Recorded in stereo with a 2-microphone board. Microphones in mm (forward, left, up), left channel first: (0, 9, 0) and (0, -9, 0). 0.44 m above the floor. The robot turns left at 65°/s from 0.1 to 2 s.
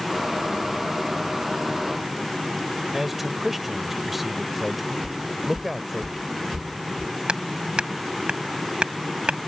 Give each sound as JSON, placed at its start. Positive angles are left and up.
{"t": 2.9, "sound": "a man speaking", "side_deg": -10}
{"t": 5.0, "sound": "footsteps", "side_deg": -45}
{"t": 7.3, "sound": "hammering", "side_deg": -70}